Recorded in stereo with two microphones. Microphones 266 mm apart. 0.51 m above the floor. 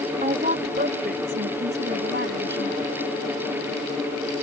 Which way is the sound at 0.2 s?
30° right (ahead or behind).